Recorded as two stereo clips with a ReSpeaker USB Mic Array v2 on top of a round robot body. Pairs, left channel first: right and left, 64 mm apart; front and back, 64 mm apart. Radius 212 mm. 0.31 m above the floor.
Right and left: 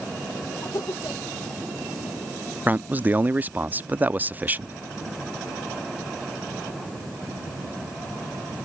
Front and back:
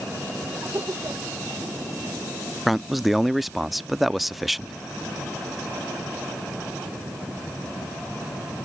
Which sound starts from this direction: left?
A man speaking, at 2.7 s.